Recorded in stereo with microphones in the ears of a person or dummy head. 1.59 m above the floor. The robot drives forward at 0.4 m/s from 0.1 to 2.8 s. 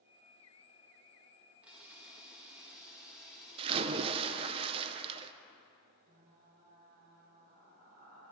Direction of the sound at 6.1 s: 40° right (ahead or behind).